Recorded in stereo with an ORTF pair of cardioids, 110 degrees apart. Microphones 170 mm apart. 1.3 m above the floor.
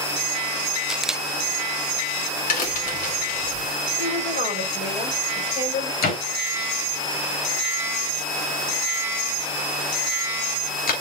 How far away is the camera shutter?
About 0.5 m.